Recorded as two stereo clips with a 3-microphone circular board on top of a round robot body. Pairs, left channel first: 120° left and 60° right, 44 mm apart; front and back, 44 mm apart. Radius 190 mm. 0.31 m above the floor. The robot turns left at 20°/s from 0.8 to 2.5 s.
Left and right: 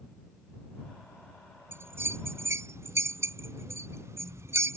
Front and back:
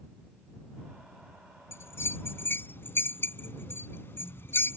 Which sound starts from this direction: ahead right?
A bell, at 1.7 s.